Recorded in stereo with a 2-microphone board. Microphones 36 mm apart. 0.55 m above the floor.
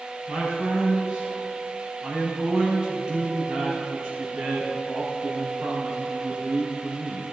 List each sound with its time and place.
0.3 s a man speaking: 25° right (ahead or behind), 4 m